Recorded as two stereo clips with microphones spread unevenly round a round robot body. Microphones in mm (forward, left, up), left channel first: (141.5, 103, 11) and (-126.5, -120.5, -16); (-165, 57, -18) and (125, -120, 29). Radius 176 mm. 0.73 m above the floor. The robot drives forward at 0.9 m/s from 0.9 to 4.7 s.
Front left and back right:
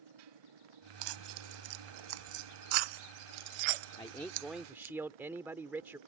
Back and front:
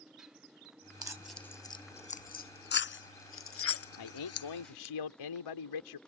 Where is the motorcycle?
120° right; by 6.1 s 125° right.